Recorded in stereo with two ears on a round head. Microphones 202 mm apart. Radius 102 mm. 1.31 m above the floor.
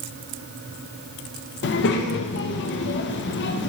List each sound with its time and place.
1.6 s a child speaking: 55° left (ahead or behind), 0.5 m